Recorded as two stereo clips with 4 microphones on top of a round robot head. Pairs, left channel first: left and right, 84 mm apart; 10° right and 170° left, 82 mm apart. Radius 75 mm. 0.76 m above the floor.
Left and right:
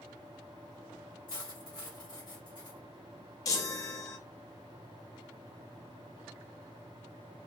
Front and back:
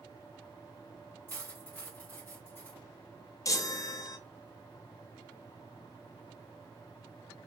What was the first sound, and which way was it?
Cutlery clinking, 55° left.